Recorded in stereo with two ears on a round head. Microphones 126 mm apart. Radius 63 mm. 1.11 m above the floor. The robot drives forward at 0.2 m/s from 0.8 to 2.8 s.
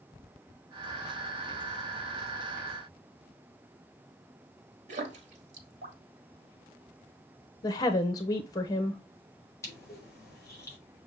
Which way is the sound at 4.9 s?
55° right (ahead or behind).